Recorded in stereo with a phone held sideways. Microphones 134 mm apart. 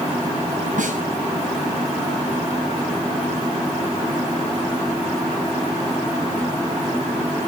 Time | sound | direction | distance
0.8 | a snare drum | 75° right (ahead or behind) | 8.5 m